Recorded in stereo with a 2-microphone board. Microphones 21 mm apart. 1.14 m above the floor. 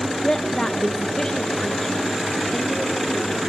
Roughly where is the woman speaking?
Left.